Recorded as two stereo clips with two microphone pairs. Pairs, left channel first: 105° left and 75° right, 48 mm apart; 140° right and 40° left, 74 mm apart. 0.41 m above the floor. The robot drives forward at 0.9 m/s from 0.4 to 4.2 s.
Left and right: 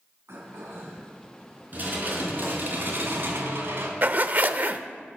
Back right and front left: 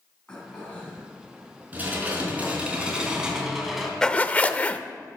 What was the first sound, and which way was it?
Throat clearing, 65° right.